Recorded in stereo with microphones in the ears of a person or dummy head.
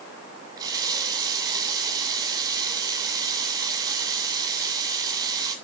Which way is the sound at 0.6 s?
20° right (ahead or behind).